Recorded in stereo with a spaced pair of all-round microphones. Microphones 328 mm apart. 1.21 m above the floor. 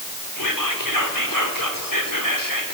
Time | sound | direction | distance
0.4 | whispering | 75° left (ahead or behind) | 4 m